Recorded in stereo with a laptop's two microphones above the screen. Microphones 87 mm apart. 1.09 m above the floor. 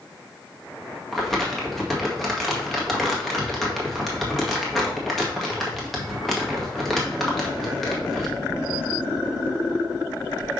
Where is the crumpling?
Centre (ahead or behind), 1.9 m.